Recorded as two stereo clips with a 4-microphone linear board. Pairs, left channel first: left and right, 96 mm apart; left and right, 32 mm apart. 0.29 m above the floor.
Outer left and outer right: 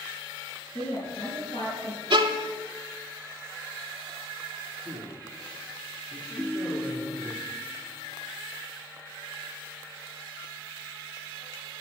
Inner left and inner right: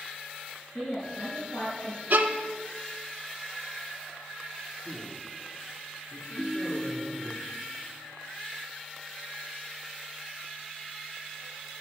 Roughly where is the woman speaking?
Left.